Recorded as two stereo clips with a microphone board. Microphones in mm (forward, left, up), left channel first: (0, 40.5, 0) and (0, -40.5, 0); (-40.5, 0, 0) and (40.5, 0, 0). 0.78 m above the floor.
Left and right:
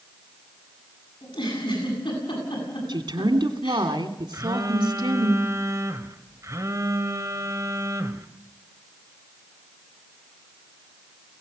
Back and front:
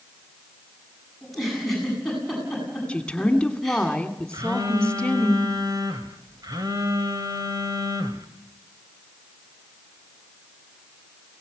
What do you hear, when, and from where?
1.2 s a giggle: 95° left, 9 m
2.9 s a woman speaking: 100° right, 2.5 m
4.3 s a phone buzzing: 40° right, 1.7 m